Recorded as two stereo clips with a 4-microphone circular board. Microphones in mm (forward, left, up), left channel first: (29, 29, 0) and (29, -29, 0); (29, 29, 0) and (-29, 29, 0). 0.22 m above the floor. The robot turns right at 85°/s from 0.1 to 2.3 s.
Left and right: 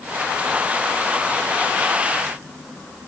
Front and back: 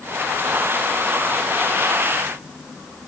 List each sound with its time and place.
Only background noise.